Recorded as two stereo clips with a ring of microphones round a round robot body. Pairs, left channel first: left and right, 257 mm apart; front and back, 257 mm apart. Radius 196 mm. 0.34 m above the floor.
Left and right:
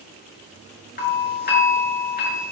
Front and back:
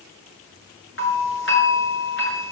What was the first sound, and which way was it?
A doorbell, 40° left.